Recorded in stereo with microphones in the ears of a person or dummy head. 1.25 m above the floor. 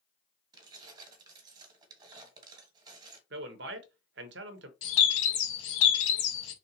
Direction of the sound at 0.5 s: 25° right (ahead or behind).